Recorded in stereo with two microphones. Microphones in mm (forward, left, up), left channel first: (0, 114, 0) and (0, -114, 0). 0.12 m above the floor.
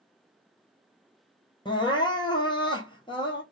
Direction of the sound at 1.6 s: 20° left (ahead or behind).